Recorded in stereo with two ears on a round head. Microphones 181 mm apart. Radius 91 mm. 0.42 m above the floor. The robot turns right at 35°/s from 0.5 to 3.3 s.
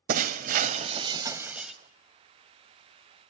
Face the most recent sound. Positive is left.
turn(degrees=55)